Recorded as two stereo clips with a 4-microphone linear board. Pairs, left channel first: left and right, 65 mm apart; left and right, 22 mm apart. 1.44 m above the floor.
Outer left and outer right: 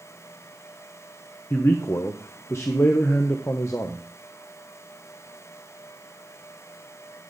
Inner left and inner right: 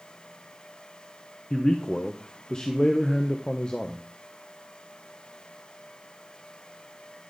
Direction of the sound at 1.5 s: 40° left (ahead or behind).